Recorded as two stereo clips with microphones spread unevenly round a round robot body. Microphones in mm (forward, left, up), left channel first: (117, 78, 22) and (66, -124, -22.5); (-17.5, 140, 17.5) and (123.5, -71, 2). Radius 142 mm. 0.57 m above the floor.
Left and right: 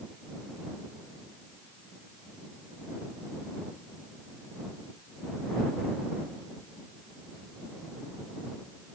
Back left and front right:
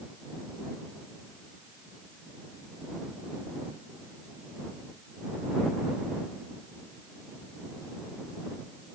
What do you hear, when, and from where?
Only background noise.